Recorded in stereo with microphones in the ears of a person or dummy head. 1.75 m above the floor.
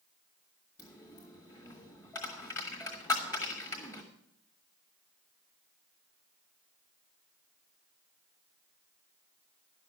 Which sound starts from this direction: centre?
A dropped coin, at 0.8 s.